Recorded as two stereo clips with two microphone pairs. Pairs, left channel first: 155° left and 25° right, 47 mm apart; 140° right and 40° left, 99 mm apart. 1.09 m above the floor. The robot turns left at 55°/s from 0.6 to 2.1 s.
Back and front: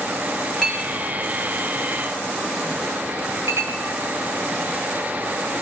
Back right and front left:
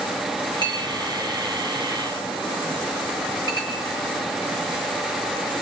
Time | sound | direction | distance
0.6 | a clink | 80° left | 2.5 m